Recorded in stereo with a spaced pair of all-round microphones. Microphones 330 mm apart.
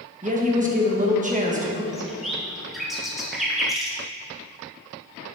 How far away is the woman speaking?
About 1.3 m.